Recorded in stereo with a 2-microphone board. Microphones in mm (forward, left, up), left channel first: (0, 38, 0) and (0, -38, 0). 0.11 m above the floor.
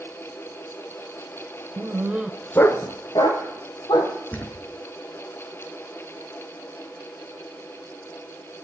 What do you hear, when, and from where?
1.8 s a dog barking: 45° right (ahead or behind), 0.9 m; by 4.2 s 70° left (ahead or behind), 2 m
4.3 s a thud: 20° left (ahead or behind), 1.0 m